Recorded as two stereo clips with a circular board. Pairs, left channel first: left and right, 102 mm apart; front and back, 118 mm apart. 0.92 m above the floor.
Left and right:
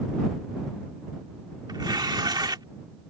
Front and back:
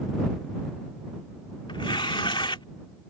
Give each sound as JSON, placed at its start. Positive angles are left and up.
{"t": 1.7, "sound": "tearing paper", "azimuth_deg": -45}